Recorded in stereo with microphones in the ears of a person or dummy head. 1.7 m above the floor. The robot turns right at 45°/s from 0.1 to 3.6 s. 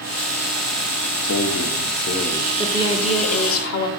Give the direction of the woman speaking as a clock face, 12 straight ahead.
12 o'clock.